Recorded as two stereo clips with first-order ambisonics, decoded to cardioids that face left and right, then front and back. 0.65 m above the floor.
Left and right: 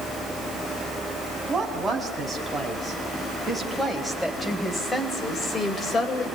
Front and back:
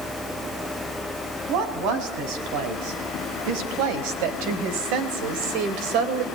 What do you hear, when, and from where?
1.5 s a woman speaking: 165° right, 6 m; by 6.3 s 155° left, 3 m